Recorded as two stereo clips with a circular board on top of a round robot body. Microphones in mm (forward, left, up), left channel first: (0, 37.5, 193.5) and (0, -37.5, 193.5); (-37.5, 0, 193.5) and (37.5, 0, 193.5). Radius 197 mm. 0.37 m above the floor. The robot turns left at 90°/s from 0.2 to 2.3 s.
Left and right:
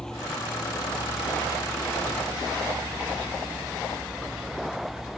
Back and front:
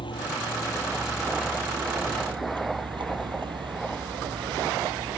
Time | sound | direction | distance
0.0 | a vehicle | 170° left | ?